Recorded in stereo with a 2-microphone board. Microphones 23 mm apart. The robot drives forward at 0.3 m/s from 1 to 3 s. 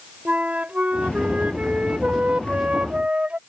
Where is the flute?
75° right (ahead or behind); by 3.4 s 65° right (ahead or behind).